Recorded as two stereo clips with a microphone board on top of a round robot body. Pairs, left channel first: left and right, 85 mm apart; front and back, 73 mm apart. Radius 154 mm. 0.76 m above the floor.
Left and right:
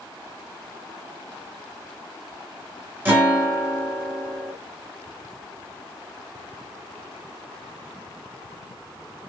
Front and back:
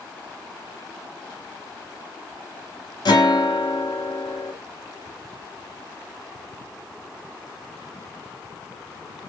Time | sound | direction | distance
3.0 | a guitar | 20° right | 2.5 m